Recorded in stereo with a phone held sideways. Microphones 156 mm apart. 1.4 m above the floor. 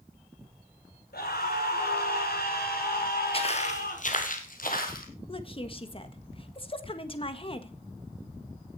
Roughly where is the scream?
Left.